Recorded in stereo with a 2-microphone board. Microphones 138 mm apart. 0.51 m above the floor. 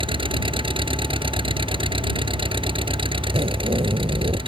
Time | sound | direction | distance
0.0 | an engine running | 40° right (ahead or behind) | ?
3.3 | a zipper | 45° right (ahead or behind) | ?